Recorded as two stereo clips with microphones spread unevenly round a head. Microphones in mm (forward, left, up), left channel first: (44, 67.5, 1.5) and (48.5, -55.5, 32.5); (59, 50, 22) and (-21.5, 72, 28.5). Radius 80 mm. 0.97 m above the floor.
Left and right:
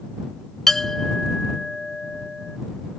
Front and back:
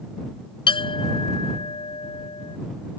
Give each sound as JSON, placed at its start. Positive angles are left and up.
{"t": 0.7, "sound": "a clink", "azimuth_deg": 5}